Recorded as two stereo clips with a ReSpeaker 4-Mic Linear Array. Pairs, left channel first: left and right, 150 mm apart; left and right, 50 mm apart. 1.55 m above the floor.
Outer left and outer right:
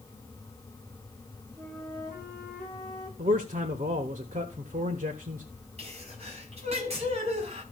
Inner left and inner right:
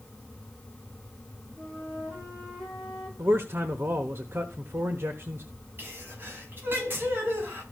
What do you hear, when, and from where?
1.6 s a flute: 30° right (ahead or behind), 6 m
3.2 s a man speaking: 65° right (ahead or behind), 1.1 m
5.8 s a sneeze: 45° right (ahead or behind), 4.5 m